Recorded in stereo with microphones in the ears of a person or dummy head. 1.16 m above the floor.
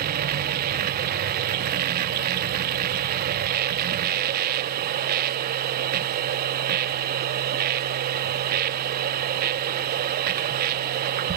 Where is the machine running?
50° right (ahead or behind), 0.9 m.